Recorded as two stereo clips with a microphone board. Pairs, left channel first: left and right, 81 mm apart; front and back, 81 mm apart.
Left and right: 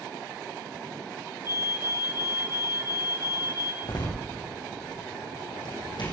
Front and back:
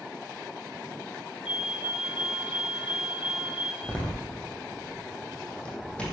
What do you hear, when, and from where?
1.4 s a fire alarm: 105° left, 4 m
3.8 s a door slam: 75° left, 5 m